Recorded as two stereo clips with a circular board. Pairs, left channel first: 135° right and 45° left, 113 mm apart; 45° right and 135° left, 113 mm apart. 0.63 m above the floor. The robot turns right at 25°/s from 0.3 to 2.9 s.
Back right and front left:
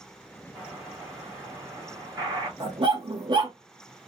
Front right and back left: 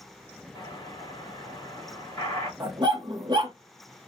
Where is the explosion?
40° right, 1.7 m; by 2.5 s 10° left, 1.7 m.